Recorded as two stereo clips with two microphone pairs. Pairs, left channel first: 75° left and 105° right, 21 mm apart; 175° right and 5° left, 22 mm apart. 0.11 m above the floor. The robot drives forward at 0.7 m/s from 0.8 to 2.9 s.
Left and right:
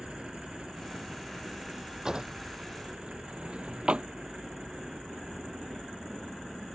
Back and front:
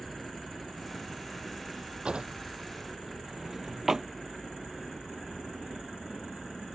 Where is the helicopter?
105° right.